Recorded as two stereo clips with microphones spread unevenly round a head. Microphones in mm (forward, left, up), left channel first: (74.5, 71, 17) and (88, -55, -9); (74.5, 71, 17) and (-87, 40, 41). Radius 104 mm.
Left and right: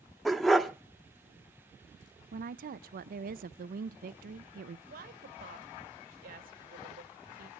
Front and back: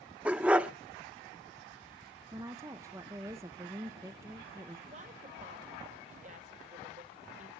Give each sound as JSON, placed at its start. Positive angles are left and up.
{"t": 0.2, "sound": "a dog barking", "azimuth_deg": 150, "distance_m": 0.6}
{"t": 2.3, "sound": "a woman speaking", "azimuth_deg": -90, "distance_m": 0.6}
{"t": 4.9, "sound": "a woman speaking", "azimuth_deg": -110, "distance_m": 1.4}